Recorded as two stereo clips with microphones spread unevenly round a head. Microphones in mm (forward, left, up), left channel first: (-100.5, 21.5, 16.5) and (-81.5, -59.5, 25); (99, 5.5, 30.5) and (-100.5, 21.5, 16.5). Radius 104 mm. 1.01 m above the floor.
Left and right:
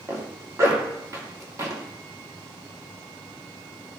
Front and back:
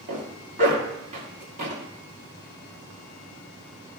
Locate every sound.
0.1 s a zipper: 130° right, 2.5 m